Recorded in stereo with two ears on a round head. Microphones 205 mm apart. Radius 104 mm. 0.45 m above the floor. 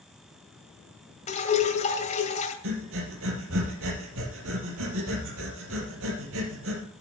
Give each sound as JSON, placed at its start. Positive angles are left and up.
{"t": 1.3, "sound": "dripping", "side_deg": 30, "distance_m": 2.0}
{"t": 2.6, "sound": "breathing", "side_deg": -60, "distance_m": 3.5}